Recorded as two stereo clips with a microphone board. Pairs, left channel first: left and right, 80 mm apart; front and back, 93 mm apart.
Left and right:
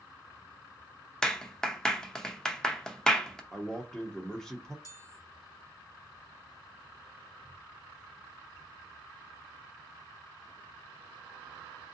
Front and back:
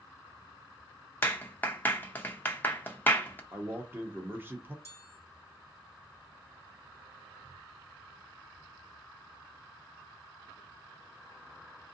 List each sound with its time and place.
1.2 s a clap: 25° left, 0.6 m
3.5 s a man speaking: 160° left, 0.8 m
4.8 s a chime: 55° left, 0.9 m